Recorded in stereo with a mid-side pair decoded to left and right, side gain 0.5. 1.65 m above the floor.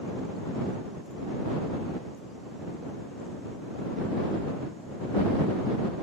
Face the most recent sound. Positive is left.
No sound to turn to.